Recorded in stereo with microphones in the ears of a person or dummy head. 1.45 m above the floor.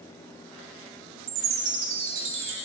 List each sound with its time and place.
1.3 s a chime: 65° right (ahead or behind), 2.5 m